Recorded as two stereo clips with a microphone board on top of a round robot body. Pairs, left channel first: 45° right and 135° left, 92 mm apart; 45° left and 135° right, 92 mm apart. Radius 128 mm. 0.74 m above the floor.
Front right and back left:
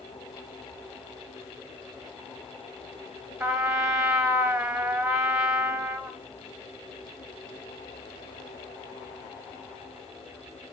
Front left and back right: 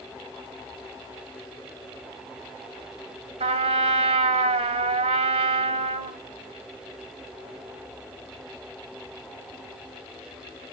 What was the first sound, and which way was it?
A trumpet, 145° right.